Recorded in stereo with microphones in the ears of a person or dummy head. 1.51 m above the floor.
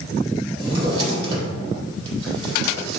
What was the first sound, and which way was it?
A drawer, 35° right (ahead or behind).